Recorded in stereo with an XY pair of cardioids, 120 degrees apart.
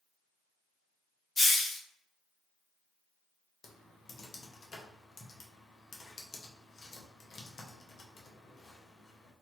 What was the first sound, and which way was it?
A hiss, 20° left.